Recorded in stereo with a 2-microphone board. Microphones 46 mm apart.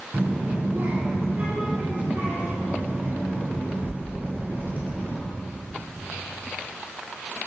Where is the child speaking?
45° right (ahead or behind), 2.5 m.